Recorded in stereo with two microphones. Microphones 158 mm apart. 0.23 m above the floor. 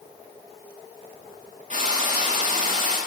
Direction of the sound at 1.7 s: 45° right (ahead or behind).